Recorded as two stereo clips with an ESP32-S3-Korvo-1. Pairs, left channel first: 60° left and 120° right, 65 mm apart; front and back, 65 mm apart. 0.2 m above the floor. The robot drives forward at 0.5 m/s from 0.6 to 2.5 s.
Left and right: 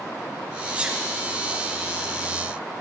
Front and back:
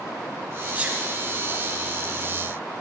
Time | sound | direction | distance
0.8 | a sneeze | 160° right | 1.6 m